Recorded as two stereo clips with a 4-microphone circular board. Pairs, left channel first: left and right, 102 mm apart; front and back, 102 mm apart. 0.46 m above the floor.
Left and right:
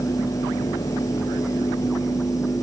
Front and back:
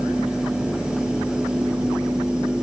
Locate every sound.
Only background noise.